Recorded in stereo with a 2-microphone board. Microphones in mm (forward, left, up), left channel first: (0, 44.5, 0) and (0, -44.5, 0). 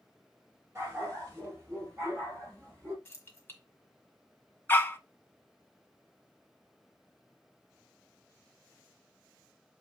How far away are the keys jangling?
About 1.6 m.